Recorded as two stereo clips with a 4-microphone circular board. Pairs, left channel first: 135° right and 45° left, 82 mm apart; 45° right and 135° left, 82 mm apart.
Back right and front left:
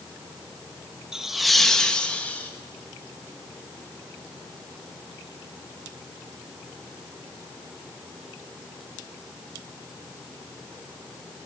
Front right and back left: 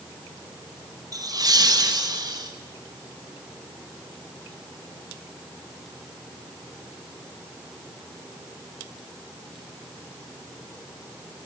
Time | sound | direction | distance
1.1 | laughter | 125° left | 1.3 m